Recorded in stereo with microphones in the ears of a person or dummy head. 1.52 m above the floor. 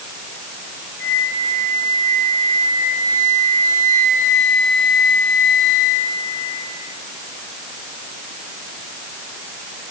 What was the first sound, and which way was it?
A flute, 65° left (ahead or behind).